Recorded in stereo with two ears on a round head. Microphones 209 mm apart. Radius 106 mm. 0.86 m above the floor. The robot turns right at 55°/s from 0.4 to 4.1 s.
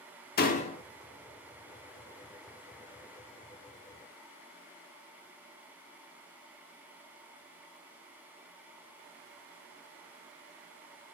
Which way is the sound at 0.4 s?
40° left (ahead or behind).